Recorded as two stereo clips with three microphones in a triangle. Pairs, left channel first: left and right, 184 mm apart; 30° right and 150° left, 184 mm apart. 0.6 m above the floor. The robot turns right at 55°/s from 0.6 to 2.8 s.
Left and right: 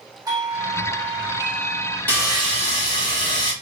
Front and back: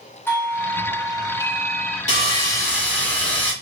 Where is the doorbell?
80° right, 1.3 m; by 2.0 s 5° right, 1.3 m.